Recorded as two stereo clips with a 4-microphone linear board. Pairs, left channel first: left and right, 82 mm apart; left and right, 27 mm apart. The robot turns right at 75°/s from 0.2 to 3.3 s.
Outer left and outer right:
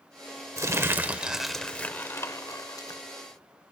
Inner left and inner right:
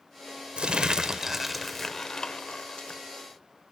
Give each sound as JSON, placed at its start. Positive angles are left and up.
{"t": 0.6, "sound": "crumpling", "azimuth_deg": -70, "distance_m": 0.7}